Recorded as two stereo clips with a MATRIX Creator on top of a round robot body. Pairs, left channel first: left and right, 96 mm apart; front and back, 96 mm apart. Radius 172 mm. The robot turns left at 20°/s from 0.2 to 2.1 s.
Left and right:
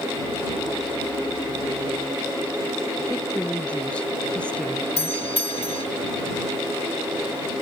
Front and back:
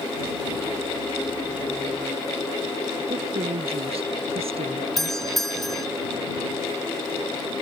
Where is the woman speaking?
170° left.